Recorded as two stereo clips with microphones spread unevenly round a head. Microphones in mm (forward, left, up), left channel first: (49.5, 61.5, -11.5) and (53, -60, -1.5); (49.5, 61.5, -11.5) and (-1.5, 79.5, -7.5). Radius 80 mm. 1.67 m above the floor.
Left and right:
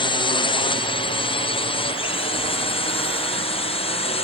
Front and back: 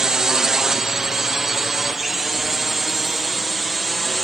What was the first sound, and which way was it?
A drone, 85° left.